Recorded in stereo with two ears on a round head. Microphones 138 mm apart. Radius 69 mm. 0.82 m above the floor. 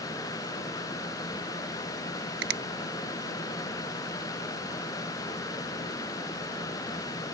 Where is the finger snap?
70° right (ahead or behind).